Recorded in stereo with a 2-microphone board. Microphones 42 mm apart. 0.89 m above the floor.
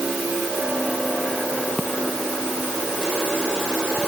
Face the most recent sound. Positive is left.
No sound to turn to.